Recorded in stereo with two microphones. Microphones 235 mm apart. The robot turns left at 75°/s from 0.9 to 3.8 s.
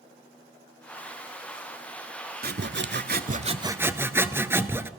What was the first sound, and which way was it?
Sawing, 65° right.